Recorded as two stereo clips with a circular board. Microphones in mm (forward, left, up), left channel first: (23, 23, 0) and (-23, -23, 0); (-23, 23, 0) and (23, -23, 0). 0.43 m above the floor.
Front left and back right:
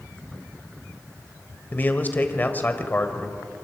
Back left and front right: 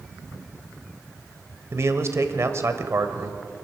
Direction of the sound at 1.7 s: 10° right.